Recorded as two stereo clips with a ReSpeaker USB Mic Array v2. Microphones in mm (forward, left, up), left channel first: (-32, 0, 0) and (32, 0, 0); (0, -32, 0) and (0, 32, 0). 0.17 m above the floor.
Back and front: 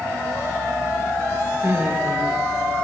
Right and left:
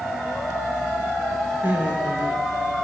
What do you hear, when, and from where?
1.6 s laughter: 30° left, 1.9 m